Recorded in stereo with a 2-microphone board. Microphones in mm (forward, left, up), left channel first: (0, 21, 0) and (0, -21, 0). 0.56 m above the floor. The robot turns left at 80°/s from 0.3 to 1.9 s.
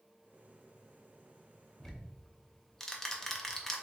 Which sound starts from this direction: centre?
Ticking, at 1.8 s.